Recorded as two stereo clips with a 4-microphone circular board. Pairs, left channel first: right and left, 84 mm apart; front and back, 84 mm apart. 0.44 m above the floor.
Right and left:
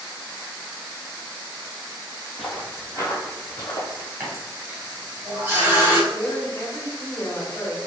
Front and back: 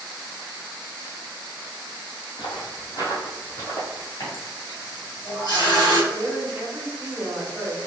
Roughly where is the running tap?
Ahead left.